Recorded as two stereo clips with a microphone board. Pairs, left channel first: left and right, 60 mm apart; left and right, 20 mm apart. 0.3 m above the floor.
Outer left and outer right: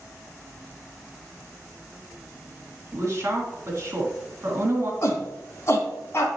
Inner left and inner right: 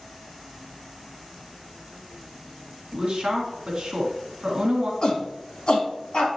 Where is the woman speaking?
40° right (ahead or behind), 2.5 m.